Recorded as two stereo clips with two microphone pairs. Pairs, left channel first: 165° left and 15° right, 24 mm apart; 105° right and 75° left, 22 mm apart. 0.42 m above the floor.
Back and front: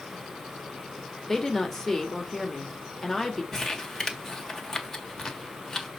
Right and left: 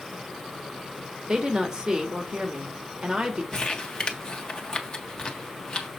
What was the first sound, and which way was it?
A woman speaking, 95° left.